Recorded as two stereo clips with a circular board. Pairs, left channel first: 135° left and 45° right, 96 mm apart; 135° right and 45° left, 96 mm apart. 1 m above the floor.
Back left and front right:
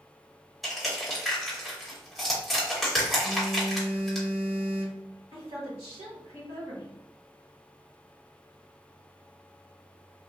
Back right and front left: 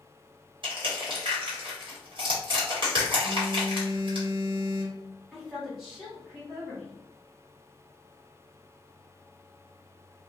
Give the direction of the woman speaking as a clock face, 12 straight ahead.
1 o'clock.